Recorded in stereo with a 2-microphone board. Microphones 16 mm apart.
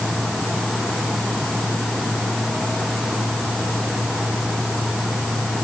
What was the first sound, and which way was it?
Only background noise.